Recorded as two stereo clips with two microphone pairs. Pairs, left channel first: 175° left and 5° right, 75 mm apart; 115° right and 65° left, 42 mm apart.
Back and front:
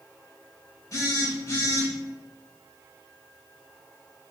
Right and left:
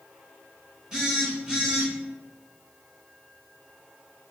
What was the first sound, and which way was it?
A phone buzzing, 135° left.